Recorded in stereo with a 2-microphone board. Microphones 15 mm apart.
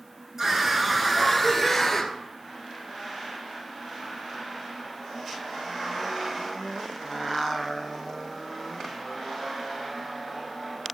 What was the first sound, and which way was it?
A scream, 25° right (ahead or behind).